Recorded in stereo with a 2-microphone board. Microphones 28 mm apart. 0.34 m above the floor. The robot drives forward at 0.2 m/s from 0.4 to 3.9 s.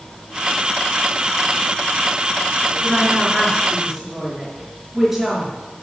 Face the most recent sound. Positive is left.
turn(degrees=-15)  # may be behind; listen again after turning